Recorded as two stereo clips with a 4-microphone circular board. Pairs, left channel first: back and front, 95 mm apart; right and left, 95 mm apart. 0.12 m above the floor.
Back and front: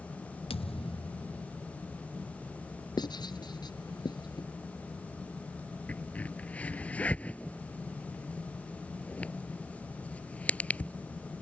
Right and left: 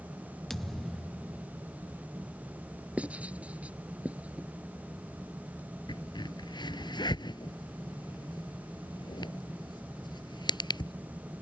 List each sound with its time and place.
0.5 s a thud: 175° right
3.0 s writing: 165° left
5.9 s a crack: 110° right